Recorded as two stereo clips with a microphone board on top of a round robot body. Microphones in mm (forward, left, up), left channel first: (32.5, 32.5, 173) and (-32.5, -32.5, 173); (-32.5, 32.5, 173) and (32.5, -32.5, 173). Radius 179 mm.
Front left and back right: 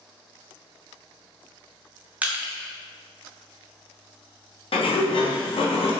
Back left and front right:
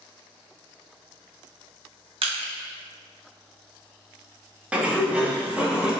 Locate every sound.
2.2 s crushing: 60° right, 0.7 m
4.7 s a sliding door: 35° left, 0.9 m